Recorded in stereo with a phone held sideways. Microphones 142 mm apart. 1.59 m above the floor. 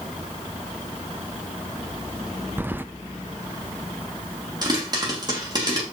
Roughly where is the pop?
Right.